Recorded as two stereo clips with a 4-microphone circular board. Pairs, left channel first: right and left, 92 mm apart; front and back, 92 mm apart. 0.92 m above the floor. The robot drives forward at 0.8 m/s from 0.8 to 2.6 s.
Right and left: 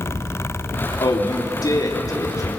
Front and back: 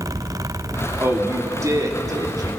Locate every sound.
1.0 s a man speaking: 120° right, 2.5 m; by 2.5 s 140° right, 3.5 m